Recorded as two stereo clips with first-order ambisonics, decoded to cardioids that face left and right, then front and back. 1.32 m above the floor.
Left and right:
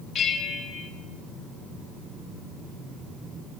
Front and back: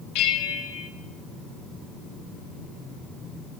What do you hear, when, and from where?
0.1 s a bell: 25° left, 1.2 m